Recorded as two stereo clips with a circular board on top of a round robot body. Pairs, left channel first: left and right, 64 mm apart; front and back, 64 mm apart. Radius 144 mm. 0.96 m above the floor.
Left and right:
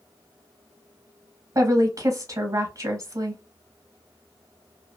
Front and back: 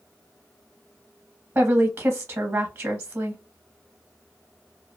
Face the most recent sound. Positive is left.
turn(degrees=-130)